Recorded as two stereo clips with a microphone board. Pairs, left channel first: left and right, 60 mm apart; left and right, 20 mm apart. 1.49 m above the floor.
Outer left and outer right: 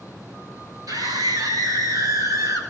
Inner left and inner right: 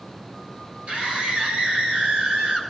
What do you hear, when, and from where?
0.9 s a scream: 90° right, 7 m; by 2.6 s 70° right (ahead or behind), 7 m